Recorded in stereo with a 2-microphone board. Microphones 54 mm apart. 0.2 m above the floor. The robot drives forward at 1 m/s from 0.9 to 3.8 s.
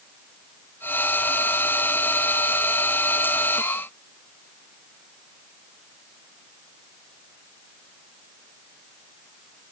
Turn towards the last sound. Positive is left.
No sound to turn to.